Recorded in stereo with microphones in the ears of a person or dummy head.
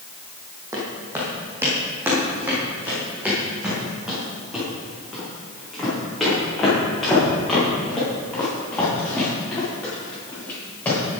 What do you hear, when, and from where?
0.7 s footsteps: 20° right (ahead or behind), 5.5 m; by 11.0 s 5° left (ahead or behind), 11 m